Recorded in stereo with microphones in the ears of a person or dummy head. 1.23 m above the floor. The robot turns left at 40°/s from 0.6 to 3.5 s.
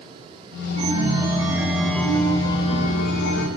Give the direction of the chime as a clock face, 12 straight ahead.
5 o'clock.